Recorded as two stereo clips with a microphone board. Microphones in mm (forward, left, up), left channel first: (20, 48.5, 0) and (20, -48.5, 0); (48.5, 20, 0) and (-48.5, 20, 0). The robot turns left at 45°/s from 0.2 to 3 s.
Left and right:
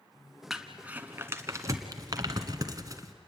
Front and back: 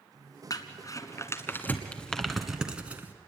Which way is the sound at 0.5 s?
5° right.